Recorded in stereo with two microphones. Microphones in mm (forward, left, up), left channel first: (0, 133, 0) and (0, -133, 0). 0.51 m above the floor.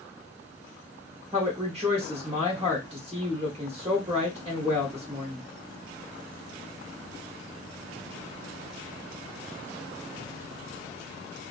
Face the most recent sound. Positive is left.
turn(degrees=-25)  # may be behind; listen again after turning